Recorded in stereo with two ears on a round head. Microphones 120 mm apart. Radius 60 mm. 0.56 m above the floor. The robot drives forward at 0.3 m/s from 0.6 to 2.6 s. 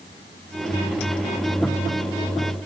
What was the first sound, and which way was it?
Only background noise.